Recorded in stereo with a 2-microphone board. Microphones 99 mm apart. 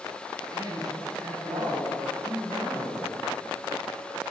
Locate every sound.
0.5 s a man speaking: 40° right (ahead or behind), 2.5 m